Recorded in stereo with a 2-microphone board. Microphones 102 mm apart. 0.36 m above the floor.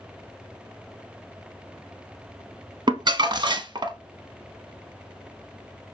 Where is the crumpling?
50° right (ahead or behind), 0.5 m.